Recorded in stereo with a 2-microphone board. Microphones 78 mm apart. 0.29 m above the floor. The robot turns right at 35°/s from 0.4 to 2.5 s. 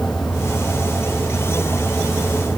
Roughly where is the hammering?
I don't hear hammering.